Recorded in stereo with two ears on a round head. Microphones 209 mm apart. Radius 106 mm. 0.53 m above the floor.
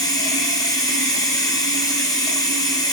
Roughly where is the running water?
Centre.